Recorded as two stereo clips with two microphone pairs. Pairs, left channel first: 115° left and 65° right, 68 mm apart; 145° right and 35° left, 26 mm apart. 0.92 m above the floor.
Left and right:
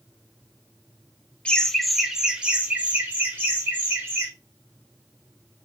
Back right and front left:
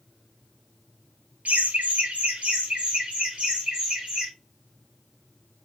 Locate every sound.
1.4 s laughter: 40° left, 0.8 m; by 4.3 s 10° right, 2.5 m